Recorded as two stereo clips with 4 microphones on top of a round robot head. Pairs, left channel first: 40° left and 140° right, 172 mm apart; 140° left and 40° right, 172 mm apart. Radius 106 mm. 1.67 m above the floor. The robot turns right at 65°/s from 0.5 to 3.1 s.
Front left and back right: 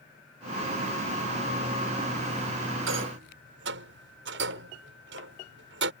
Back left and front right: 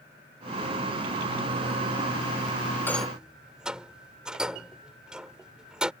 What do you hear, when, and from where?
2.9 s a rattle: 140° right; by 5.9 s 125° right